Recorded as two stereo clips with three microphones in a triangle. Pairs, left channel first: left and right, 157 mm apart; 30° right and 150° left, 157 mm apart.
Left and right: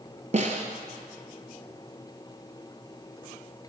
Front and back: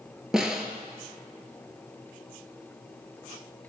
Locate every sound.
0.3 s a snare drum: 125° right, 0.6 m